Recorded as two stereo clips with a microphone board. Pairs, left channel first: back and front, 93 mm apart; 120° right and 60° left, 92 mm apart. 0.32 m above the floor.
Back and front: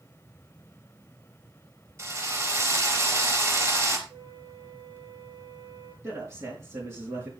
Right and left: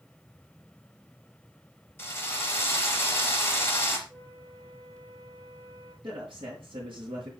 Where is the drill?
60° right, 4.5 m.